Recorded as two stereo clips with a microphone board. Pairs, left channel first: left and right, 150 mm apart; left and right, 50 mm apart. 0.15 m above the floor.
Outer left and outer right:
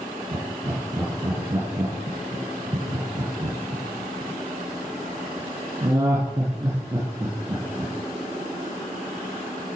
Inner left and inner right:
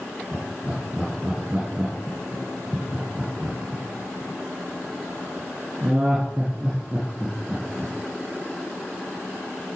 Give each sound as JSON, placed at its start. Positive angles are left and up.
{"t": 0.3, "sound": "laughter", "side_deg": -20, "distance_m": 4.5}